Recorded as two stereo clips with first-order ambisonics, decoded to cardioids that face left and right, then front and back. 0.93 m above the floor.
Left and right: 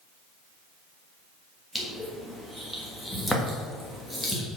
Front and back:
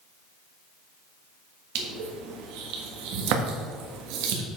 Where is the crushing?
175° left, 1.5 m.